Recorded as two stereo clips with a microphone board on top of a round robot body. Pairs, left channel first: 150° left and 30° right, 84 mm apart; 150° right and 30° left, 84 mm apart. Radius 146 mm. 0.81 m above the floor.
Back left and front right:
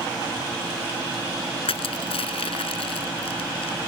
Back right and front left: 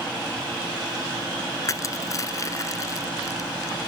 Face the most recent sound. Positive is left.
turn(degrees=155)